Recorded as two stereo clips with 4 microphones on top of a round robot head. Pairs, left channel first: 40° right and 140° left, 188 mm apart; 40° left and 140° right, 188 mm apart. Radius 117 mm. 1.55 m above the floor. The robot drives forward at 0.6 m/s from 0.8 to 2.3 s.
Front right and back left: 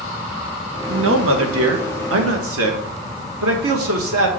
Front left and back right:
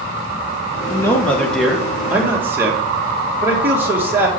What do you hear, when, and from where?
0.9 s a man speaking: 115° left, 1.2 m; by 4.3 s 140° left, 1.8 m